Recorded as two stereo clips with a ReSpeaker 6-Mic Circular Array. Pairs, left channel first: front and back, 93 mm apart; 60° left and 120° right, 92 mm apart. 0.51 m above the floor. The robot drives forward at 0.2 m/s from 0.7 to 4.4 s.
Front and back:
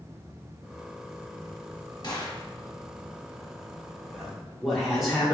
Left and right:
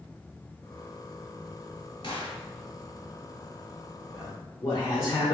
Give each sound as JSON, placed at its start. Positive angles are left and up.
{"t": 2.0, "sound": "a gunshot", "azimuth_deg": 40, "distance_m": 1.1}
{"t": 4.1, "sound": "a man speaking", "azimuth_deg": 85, "distance_m": 1.1}